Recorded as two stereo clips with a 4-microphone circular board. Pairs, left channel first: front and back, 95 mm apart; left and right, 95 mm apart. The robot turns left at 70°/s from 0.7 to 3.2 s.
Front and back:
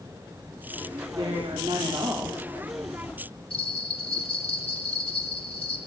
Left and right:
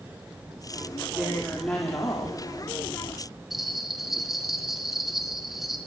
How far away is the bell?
About 2.5 m.